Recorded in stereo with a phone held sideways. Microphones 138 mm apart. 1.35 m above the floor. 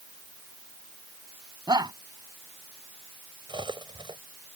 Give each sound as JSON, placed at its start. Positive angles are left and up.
{"t": 1.7, "sound": "a shout", "side_deg": -30}
{"t": 3.5, "sound": "cutlery clinking", "side_deg": -35}